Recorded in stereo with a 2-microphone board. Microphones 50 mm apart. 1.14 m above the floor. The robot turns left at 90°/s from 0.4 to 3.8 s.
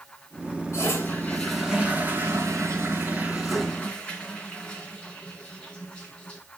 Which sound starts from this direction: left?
A toilet flushing, at 0.7 s.